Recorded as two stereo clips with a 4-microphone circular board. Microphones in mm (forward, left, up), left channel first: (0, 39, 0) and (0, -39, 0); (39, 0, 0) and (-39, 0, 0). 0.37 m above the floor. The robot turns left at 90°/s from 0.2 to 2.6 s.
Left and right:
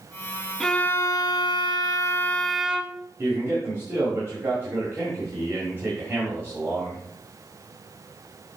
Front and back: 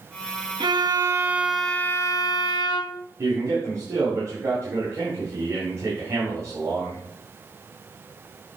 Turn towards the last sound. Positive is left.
turn(degrees=-140)